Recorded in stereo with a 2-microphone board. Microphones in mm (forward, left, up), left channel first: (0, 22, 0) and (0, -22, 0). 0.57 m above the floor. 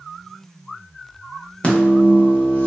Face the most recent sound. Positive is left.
turn(degrees=30)  # may be behind; listen again after turning